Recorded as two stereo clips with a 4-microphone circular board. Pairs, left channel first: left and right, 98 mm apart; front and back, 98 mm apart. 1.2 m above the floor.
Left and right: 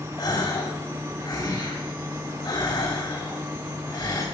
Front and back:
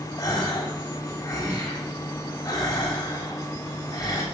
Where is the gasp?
55° left, 3 m.